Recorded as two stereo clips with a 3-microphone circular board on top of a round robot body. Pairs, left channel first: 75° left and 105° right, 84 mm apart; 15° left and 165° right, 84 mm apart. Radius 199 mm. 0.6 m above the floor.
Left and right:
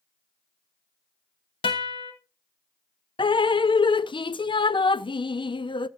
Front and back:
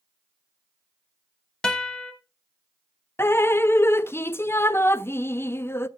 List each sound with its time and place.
1.6 s a guitar: 95° left, 0.7 m
3.2 s dripping: 75° left, 0.7 m